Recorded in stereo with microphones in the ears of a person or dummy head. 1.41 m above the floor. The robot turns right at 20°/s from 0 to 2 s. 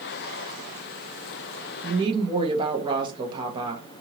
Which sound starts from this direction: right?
A woman speaking, at 1.8 s.